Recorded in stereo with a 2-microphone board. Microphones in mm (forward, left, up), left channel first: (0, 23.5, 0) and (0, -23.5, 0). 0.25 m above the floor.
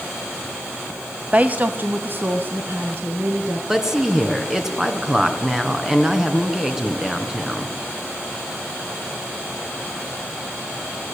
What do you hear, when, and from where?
1.3 s a woman speaking: 30° right (ahead or behind), 1.2 m; by 3.6 s 50° right (ahead or behind), 4 m
3.7 s a woman speaking: 10° right (ahead or behind), 3 m